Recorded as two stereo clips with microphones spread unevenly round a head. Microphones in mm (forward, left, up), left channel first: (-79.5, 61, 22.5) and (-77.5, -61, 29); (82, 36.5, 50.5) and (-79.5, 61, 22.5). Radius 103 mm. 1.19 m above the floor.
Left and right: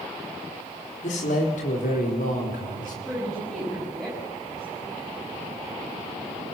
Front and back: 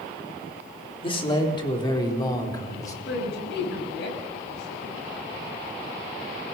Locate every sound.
1.0 s a man speaking: 50° left, 3.5 m; by 3.0 s 60° left, 5 m
3.0 s a woman speaking: 5° left, 6.5 m